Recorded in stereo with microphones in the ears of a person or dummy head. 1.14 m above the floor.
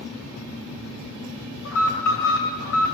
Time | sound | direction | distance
1.6 | an alarm | 75° left (ahead or behind) | 4.5 m